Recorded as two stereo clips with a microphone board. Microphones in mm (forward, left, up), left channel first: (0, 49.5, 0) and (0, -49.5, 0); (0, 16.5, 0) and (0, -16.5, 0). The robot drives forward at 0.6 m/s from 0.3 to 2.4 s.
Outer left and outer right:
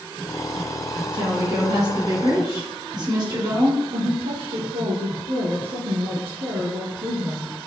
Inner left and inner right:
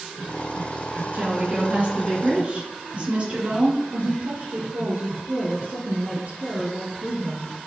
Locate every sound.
1.1 s a woman speaking: 50° right (ahead or behind), 2.5 m; by 3.8 s 45° right (ahead or behind), 3 m
3.9 s a woman speaking: 70° right (ahead or behind), 3.5 m